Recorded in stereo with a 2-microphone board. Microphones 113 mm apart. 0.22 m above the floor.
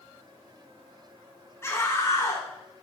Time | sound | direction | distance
1.6 | a scream | 25° left (ahead or behind) | 2 m